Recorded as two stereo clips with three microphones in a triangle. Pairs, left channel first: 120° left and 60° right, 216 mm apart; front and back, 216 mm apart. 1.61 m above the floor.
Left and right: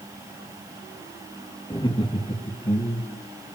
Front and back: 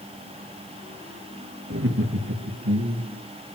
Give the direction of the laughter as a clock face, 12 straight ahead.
6 o'clock.